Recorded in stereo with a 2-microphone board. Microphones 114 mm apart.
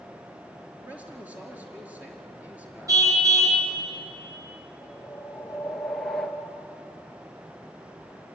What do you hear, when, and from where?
0.8 s a man speaking: 10° right (ahead or behind), 5 m
2.9 s a car horn: 30° right (ahead or behind), 3 m
4.8 s a whoosh: centre (ahead or behind), 1.6 m